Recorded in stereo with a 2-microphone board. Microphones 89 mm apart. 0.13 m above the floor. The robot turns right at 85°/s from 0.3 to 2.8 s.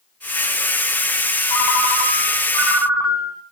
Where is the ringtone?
70° left, 4 m; by 3.4 s 175° right, 4 m.